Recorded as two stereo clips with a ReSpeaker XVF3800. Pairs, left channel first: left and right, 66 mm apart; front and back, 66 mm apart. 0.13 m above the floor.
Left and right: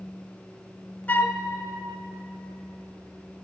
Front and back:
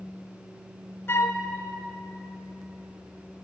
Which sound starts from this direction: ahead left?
A flute, at 1.1 s.